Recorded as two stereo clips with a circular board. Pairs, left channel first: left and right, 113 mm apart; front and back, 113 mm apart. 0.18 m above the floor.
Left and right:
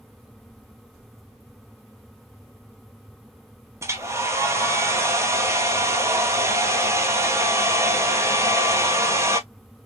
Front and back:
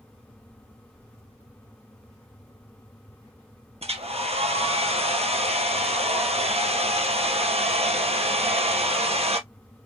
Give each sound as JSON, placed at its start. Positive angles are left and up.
{"t": 3.8, "sound": "a hair dryer", "azimuth_deg": -155, "distance_m": 1.0}